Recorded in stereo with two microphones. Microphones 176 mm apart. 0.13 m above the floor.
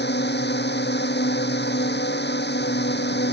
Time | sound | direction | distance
0.0 | a drone | 75° left (ahead or behind) | ?